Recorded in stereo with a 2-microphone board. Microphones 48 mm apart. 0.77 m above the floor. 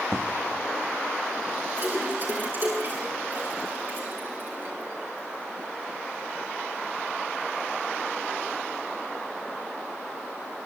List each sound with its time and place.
0.1 s an explosion: 55° right (ahead or behind), 1.7 m
1.8 s a splash: 45° right (ahead or behind), 7 m